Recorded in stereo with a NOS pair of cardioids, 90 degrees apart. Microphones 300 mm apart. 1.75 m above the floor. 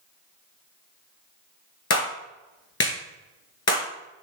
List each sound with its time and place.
1.9 s a clap: 55° left, 2.5 m